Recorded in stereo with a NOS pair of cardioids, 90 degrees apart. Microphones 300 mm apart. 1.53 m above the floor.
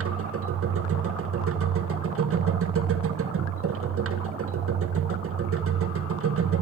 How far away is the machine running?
About 1.8 m.